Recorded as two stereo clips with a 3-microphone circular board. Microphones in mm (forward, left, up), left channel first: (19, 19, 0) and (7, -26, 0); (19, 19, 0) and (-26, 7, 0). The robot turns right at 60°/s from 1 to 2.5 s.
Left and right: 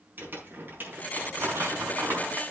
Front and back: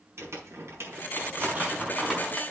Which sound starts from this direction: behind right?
Crumpling, at 0.2 s.